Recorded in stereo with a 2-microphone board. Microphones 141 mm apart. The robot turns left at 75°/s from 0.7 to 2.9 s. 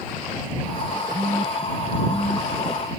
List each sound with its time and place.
1.1 s a phone buzzing: 50° right (ahead or behind); by 2.5 s 50° left (ahead or behind)